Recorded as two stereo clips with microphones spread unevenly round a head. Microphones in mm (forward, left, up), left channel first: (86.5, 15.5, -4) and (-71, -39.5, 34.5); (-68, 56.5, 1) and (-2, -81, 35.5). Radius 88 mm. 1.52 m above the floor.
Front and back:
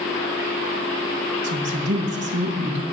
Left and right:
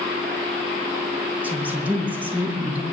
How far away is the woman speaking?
About 1.9 m.